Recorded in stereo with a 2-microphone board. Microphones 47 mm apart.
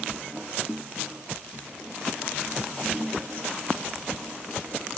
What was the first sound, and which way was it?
Only background noise.